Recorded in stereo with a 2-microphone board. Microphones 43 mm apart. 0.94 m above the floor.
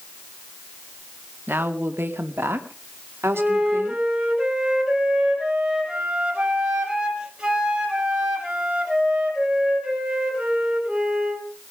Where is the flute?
20° right (ahead or behind), 5 m.